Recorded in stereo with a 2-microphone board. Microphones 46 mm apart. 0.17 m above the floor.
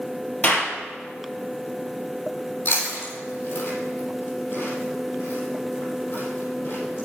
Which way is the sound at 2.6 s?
50° left (ahead or behind).